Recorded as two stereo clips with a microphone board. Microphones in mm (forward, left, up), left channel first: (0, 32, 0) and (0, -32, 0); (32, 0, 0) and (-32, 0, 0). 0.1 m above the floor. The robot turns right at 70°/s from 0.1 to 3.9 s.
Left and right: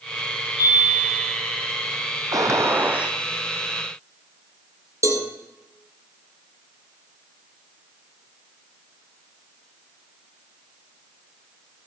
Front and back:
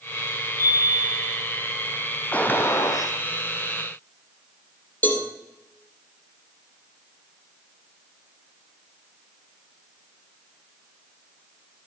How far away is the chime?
About 8 m.